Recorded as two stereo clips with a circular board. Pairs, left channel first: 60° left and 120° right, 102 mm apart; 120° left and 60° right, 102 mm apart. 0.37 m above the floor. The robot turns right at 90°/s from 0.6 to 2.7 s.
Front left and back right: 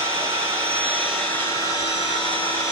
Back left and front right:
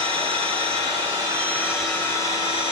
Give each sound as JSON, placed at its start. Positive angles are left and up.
{"t": 0.0, "sound": "an engine running", "azimuth_deg": -75, "distance_m": 1.4}